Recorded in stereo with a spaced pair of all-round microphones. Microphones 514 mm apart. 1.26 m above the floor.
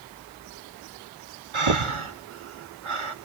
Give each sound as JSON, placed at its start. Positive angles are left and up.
{"t": 1.5, "sound": "breathing", "side_deg": -65, "distance_m": 0.8}